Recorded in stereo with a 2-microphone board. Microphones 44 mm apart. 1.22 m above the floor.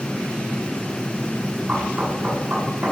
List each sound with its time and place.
1.7 s knocking: 45° right (ahead or behind), 4 m